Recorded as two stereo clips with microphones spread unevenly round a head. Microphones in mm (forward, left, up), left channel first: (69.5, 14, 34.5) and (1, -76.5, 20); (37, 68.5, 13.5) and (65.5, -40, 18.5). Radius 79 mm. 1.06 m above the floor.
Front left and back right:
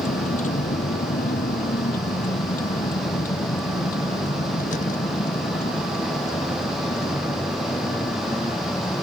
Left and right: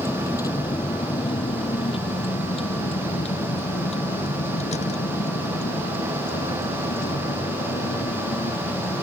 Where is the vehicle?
45° left; by 9.0 s 110° left.